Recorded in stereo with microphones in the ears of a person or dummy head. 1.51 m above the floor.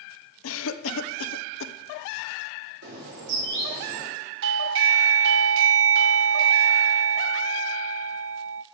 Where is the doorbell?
70° right (ahead or behind), 0.6 m.